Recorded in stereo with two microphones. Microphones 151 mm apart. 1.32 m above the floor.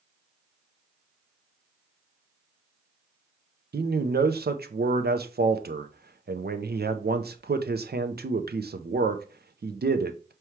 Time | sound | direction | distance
3.7 | a man speaking | 80° right | 0.5 m